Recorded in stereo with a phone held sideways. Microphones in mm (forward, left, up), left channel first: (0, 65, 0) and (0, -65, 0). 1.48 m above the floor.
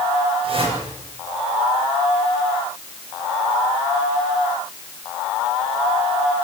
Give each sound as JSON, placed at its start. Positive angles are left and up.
{"t": 0.4, "sound": "a whoosh", "side_deg": -45, "distance_m": 9.0}